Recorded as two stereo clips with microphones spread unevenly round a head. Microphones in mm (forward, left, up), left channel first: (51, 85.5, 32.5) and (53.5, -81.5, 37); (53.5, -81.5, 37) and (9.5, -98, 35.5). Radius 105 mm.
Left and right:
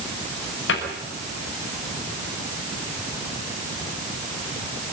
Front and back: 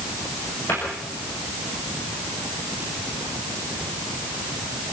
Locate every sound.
0.7 s a cupboard door: 95° left, 6 m